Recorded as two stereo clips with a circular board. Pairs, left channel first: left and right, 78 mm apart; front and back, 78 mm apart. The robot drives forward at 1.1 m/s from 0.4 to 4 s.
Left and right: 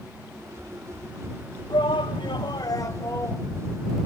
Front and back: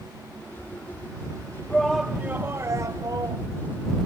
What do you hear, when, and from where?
1.7 s a shout: 75° left; by 3.4 s 145° left